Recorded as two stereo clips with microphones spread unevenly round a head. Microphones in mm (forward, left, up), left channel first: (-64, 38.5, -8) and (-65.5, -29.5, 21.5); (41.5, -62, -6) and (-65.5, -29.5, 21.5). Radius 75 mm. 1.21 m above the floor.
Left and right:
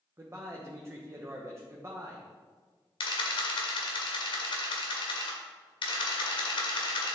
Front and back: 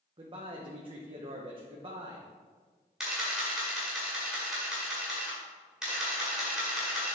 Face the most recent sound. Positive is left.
turn(degrees=85)